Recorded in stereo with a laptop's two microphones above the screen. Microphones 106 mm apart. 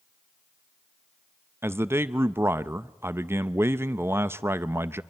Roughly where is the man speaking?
Right.